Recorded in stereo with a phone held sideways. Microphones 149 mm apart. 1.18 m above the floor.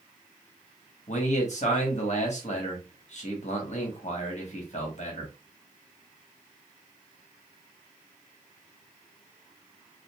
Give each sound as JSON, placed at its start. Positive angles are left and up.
{"t": 1.1, "sound": "a man speaking", "side_deg": 50, "distance_m": 1.1}